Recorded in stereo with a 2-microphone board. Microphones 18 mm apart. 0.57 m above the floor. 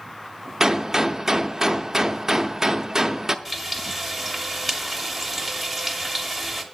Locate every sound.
0.6 s a gunshot: 30° right (ahead or behind), 0.5 m
3.5 s frying: centre (ahead or behind), 1.1 m